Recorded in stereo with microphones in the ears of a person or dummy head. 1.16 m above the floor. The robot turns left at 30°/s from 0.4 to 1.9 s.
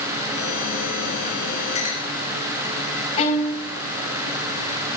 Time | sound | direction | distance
1.8 | a clink | 40° left (ahead or behind) | 4 m
3.2 | a violin | 35° left (ahead or behind) | 6.5 m